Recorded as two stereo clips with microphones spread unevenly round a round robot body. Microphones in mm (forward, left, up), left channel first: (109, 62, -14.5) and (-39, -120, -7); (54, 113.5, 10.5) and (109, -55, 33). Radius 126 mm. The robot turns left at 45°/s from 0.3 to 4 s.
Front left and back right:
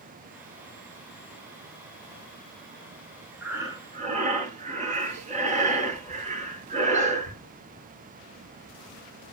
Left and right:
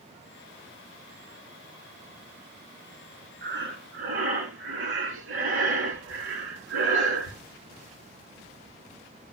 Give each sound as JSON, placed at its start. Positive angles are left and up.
{"t": 3.4, "sound": "breathing", "azimuth_deg": -45, "distance_m": 3.5}